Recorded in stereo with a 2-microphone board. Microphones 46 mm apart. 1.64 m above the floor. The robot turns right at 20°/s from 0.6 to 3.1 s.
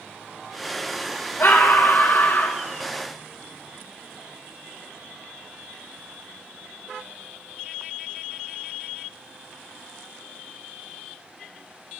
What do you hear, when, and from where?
1.4 s a scream: 55° left (ahead or behind), 1.2 m; by 2.6 s 30° left (ahead or behind), 1.2 m